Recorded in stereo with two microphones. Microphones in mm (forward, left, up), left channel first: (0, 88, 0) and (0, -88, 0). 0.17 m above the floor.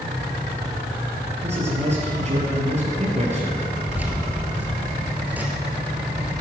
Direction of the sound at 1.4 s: 40° right (ahead or behind).